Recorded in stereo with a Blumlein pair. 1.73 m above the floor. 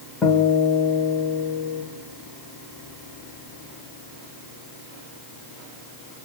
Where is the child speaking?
No child speaking in this recording.